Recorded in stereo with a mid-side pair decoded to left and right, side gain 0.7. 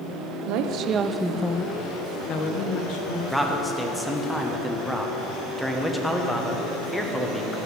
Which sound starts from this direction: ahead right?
A woman speaking, at 0.5 s.